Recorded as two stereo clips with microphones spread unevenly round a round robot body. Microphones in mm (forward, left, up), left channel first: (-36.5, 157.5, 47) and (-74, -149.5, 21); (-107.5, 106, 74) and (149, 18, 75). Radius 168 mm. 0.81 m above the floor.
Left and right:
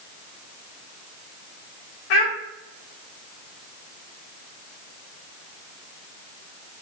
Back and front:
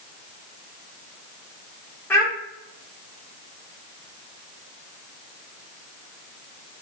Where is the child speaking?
75° left, 0.8 m.